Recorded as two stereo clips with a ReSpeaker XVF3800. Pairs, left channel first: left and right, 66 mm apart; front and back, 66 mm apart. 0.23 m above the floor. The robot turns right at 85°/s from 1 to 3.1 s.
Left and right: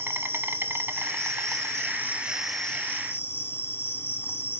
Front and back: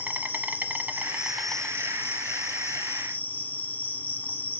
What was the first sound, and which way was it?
An insect, 125° right.